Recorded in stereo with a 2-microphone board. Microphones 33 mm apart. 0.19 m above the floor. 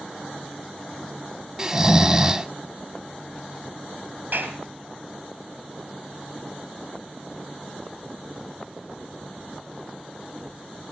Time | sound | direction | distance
1.6 | snoring | 20° right (ahead or behind) | 0.6 m
4.3 | a clap | 60° right (ahead or behind) | 3.5 m